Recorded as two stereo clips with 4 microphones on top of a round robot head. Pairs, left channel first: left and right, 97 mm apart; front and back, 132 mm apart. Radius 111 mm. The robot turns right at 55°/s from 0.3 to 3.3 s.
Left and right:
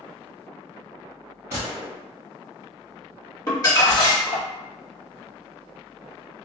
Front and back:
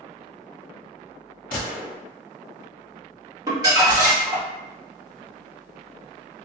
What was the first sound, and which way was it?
A gunshot, 20° right.